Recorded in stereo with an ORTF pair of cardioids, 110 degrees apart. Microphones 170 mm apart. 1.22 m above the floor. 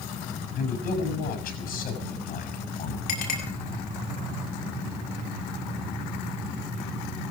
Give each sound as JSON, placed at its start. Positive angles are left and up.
{"t": 0.6, "sound": "a man speaking", "azimuth_deg": 60, "distance_m": 7.0}
{"t": 3.1, "sound": "a clink", "azimuth_deg": 65, "distance_m": 6.5}